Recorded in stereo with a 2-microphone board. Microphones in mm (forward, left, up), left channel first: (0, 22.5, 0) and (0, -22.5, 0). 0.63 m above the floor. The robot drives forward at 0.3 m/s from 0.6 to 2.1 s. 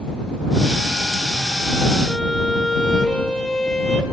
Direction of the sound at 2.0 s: 15° left (ahead or behind).